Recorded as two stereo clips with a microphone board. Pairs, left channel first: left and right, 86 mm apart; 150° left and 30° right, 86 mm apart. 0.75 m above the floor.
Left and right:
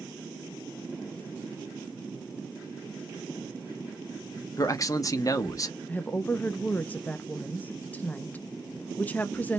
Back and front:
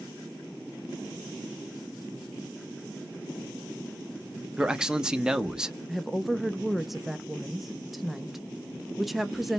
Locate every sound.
4.6 s a man speaking: 50° left, 0.7 m
5.9 s a woman speaking: 60° left, 0.6 m